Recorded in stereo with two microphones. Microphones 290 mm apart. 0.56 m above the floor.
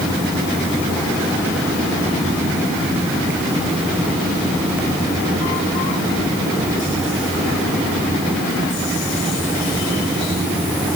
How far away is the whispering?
I don't hear whispering.